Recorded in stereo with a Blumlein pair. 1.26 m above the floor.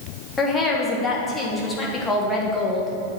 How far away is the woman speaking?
About 1.4 m.